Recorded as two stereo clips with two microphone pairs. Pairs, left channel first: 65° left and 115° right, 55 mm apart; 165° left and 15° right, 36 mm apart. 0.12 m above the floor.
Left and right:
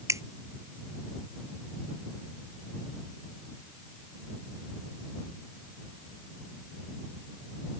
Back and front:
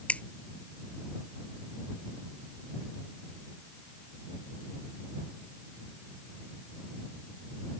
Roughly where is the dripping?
Behind right.